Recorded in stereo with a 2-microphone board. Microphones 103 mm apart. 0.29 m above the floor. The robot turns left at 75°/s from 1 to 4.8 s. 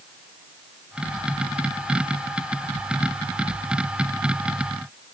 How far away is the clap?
No clap in this recording.